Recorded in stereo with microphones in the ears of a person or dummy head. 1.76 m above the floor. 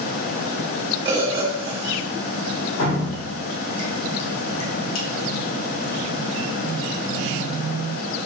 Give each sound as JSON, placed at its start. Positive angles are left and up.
{"t": 1.1, "sound": "a bird", "side_deg": -20, "distance_m": 1.3}
{"t": 2.8, "sound": "dripping", "side_deg": 80, "distance_m": 1.6}